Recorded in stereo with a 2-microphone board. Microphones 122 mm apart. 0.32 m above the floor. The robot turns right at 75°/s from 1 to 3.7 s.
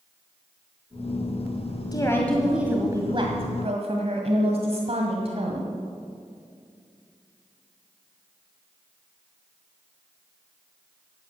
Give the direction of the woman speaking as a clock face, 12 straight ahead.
7 o'clock.